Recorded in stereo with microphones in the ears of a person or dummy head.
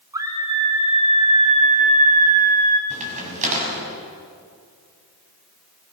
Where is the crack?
40° right (ahead or behind), 6 m.